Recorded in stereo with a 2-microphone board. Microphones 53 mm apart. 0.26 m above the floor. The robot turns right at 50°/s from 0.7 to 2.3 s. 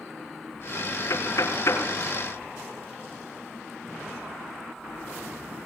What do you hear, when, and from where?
1.1 s knocking: 70° left (ahead or behind), 4 m; by 1.9 s 60° left (ahead or behind), 4 m